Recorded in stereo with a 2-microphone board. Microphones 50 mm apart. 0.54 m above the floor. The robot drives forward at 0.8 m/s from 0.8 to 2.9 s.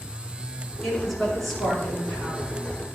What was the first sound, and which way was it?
A woman speaking, 10° left (ahead or behind).